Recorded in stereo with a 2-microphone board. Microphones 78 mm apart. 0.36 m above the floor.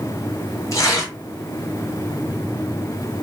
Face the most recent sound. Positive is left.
turn(degrees=40)  # may be behind; listen again after turning